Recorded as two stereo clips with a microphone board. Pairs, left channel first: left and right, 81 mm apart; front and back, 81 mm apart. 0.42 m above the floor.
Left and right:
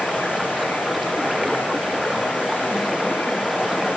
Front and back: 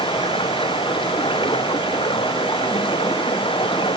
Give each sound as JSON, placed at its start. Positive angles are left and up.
{"t": 0.0, "sound": "running water", "azimuth_deg": 0}